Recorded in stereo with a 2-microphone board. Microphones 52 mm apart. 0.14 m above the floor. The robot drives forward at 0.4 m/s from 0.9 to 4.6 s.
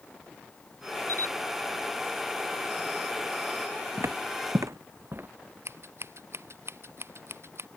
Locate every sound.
1.1 s a camera shutter: 80° right
4.0 s footsteps: 60° right (ahead or behind); by 5.3 s 40° right (ahead or behind)
5.7 s scissors: 60° right (ahead or behind)